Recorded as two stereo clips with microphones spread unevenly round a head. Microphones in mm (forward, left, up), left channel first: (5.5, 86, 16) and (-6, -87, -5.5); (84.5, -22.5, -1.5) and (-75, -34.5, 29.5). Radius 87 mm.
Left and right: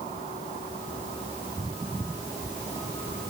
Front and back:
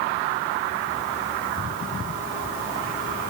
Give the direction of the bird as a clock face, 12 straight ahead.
I don't hear a bird.